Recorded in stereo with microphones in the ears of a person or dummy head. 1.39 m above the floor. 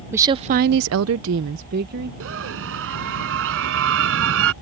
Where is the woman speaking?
15° right (ahead or behind); by 2.1 s 50° right (ahead or behind).